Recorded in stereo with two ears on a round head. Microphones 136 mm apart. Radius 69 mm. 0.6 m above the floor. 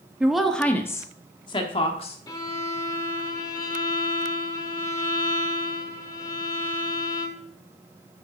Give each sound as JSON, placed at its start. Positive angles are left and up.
{"t": 0.2, "sound": "a woman speaking", "side_deg": -5, "distance_m": 0.8}
{"t": 2.3, "sound": "a violin", "side_deg": 25, "distance_m": 0.8}